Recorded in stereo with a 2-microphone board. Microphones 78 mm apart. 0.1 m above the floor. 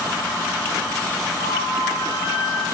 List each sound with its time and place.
1.4 s a flute: 55° left (ahead or behind), 10 m